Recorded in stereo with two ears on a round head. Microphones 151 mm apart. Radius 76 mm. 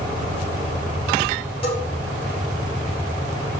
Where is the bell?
40° left (ahead or behind), 3.5 m.